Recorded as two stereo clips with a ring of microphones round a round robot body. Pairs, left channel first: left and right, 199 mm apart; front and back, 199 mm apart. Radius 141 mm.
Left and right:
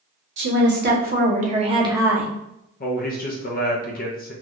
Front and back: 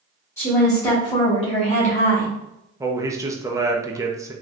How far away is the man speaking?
About 0.7 m.